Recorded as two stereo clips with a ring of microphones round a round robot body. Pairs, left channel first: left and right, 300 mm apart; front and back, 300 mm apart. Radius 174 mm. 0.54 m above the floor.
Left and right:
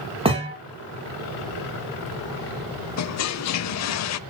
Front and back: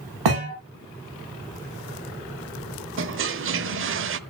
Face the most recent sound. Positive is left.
turn(degrees=130)